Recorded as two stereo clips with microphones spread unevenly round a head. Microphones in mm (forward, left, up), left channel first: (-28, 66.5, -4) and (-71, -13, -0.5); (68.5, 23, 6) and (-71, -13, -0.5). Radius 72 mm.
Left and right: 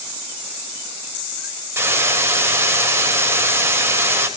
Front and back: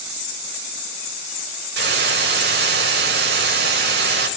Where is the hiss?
Straight behind, 4.5 m.